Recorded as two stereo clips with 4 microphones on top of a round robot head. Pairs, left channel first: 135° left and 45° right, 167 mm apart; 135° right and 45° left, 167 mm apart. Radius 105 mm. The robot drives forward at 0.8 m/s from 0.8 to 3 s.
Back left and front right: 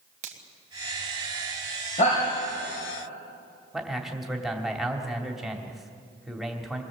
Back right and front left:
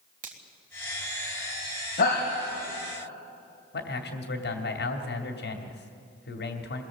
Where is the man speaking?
135° right, 2.5 m.